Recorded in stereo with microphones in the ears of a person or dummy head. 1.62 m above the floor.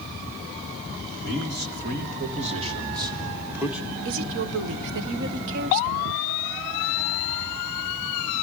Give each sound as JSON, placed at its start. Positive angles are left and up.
{"t": 1.2, "sound": "a man speaking", "side_deg": -60, "distance_m": 2.5}
{"t": 4.0, "sound": "a woman speaking", "side_deg": -65, "distance_m": 1.2}